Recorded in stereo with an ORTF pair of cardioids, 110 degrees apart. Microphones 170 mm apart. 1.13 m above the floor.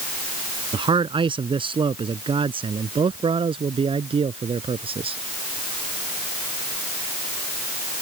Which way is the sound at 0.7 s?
30° right.